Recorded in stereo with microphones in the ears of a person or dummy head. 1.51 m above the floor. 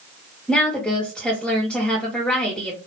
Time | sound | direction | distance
0.5 | a woman speaking | centre (ahead or behind) | 1.6 m